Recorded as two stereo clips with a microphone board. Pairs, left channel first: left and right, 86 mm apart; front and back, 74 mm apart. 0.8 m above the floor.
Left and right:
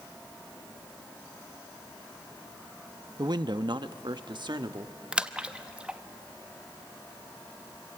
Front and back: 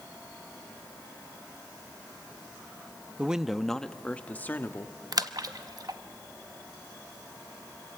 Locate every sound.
3.2 s a man speaking: 110° right, 0.7 m; by 5.0 s 60° right, 1.4 m
5.1 s a splash: 165° right, 0.8 m